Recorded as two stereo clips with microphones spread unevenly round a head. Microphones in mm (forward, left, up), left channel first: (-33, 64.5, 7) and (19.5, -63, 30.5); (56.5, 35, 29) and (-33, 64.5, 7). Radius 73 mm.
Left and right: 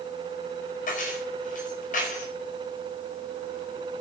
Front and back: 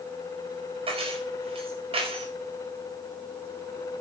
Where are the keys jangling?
145° left, 5 m.